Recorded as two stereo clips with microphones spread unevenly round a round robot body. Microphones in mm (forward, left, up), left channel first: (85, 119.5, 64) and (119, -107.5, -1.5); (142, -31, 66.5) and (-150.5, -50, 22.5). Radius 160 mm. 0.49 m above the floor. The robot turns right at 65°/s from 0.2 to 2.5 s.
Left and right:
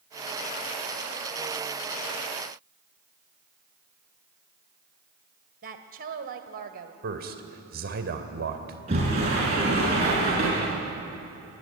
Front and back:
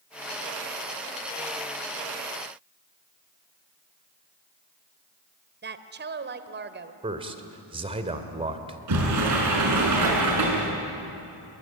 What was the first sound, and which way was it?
A woman speaking, 125° right.